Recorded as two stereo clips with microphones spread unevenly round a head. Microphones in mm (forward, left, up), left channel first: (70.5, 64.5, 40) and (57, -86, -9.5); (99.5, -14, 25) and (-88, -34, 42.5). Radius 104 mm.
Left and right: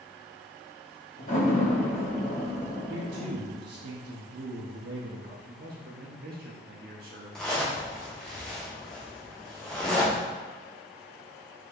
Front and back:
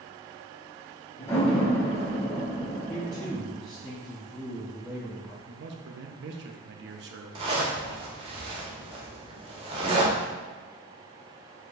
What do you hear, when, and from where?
1.2 s a door slam: 70° left, 2.0 m
2.9 s a man speaking: 80° right, 0.7 m
5.5 s a man speaking: 145° right, 0.6 m
7.3 s a zipper: 145° left, 0.6 m